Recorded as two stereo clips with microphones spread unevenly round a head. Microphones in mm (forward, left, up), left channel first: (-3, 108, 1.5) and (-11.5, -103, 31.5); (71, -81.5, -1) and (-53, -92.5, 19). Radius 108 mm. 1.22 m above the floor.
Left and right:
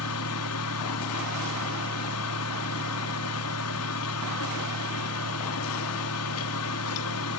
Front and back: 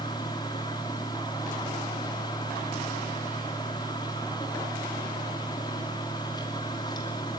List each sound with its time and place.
0.0 s a fan: 75° left, 2.5 m